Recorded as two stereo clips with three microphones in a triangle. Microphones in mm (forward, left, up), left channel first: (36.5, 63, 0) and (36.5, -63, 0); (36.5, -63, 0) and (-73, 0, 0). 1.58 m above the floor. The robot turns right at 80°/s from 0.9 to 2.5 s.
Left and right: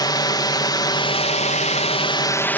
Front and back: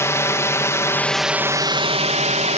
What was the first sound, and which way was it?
A drone, 35° left.